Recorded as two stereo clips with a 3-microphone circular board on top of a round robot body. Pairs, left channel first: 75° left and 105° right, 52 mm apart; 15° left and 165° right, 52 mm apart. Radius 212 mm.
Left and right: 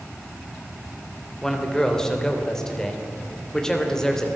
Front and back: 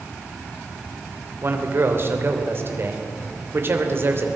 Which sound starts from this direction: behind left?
A man speaking, at 1.4 s.